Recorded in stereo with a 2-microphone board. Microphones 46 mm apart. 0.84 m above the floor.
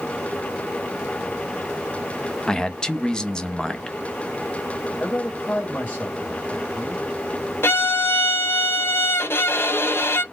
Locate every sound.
2.5 s a man speaking: 15° left (ahead or behind), 0.5 m
5.0 s a man speaking: 45° left (ahead or behind), 1.8 m
7.6 s a violin: 55° left (ahead or behind), 0.5 m